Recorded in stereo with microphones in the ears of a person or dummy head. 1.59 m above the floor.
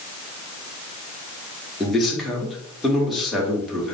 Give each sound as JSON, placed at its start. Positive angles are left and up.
{"t": 1.8, "sound": "a man speaking", "side_deg": 0, "distance_m": 1.1}